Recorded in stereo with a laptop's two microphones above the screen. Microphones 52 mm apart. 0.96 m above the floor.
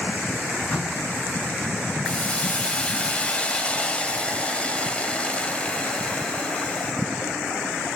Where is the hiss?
25° left (ahead or behind), 1.4 m.